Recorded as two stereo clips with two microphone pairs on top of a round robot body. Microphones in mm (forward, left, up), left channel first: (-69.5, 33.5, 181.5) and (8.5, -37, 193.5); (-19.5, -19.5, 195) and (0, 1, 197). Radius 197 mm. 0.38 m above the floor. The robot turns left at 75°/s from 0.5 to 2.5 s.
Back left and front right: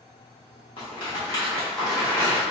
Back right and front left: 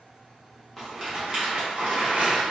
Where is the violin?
I don't hear a violin.